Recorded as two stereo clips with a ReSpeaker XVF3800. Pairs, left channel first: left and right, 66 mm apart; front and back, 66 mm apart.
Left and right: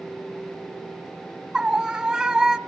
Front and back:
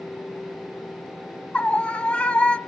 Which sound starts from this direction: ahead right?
A scream, at 1.5 s.